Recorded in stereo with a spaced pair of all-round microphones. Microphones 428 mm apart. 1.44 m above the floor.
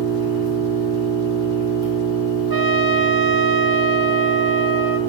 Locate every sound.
0.0 s an engine running: 10° right (ahead or behind), 2.5 m
2.5 s a trumpet: 55° right (ahead or behind), 0.6 m